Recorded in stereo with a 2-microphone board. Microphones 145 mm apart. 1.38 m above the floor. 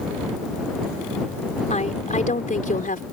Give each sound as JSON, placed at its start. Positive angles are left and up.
{"t": 1.7, "sound": "a woman speaking", "side_deg": 55}